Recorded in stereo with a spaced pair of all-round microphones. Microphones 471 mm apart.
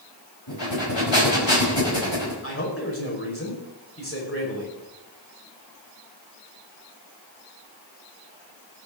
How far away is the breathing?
About 4.5 m.